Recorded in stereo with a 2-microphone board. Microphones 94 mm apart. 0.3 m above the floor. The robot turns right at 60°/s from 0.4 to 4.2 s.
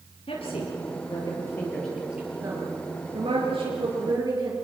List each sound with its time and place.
0.3 s a woman speaking: 80° left, 6 m; by 4.6 s 45° right (ahead or behind), 6 m